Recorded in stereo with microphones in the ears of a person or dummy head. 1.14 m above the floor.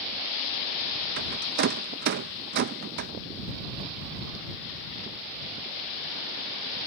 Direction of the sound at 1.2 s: 50° right (ahead or behind).